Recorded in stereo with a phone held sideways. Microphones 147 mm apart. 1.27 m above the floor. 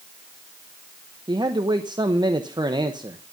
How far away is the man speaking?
About 0.8 m.